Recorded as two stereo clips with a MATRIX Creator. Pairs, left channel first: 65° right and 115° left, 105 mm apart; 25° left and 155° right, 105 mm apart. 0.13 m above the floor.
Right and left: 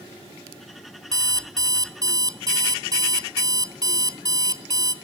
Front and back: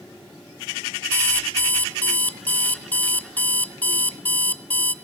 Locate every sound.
1.1 s an alarm clock: 90° left, 1.0 m